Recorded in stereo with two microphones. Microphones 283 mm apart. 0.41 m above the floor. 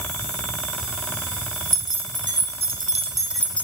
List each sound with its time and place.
1.7 s keys jangling: 45° right (ahead or behind), 1.6 m; by 3.6 s 20° left (ahead or behind), 0.5 m